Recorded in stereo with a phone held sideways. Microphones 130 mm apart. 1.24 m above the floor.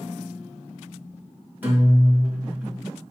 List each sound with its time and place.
1.6 s a guitar: 15° right (ahead or behind), 1.3 m